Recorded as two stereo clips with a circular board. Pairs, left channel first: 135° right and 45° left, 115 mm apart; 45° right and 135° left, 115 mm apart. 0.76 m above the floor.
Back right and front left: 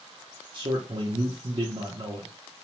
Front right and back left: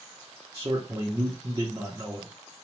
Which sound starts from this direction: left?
A man speaking, at 0.5 s.